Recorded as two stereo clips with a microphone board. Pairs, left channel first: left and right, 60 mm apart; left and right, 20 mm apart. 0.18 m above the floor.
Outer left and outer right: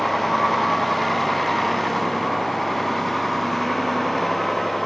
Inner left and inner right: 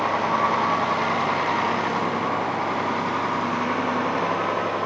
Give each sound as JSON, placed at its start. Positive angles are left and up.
{"t": 0.0, "sound": "a vehicle", "side_deg": 5}